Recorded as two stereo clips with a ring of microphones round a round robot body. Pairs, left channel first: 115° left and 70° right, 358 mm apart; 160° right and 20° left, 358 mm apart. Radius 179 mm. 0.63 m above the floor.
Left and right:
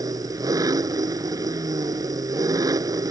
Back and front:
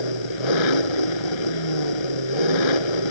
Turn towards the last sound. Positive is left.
turn(degrees=-150)